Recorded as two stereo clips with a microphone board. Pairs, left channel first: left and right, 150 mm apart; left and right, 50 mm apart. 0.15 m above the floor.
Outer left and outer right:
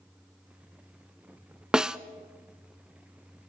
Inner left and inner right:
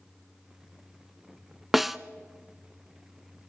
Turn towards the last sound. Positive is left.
turn(degrees=-5)  # may be behind; listen again after turning